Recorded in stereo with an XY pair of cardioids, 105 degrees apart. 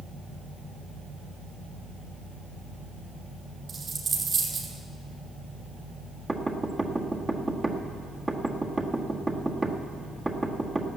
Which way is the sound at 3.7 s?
50° right.